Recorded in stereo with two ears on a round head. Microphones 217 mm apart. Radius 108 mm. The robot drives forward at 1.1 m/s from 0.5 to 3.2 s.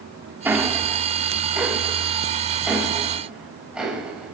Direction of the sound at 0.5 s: 10° right (ahead or behind).